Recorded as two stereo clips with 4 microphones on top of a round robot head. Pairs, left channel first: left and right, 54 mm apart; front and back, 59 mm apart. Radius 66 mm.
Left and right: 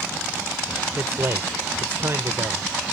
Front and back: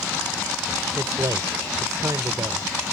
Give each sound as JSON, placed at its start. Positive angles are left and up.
{"t": 0.9, "sound": "a man speaking", "azimuth_deg": -135}